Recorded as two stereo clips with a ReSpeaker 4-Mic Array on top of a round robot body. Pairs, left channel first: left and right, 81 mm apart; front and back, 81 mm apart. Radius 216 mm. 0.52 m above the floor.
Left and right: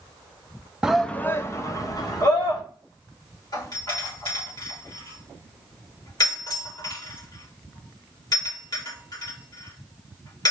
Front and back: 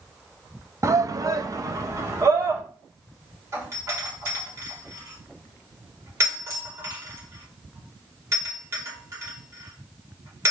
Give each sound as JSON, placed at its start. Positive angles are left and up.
{"t": 0.8, "sound": "a shout", "azimuth_deg": -160, "distance_m": 0.7}
{"t": 3.5, "sound": "a doorbell", "azimuth_deg": 125, "distance_m": 4.0}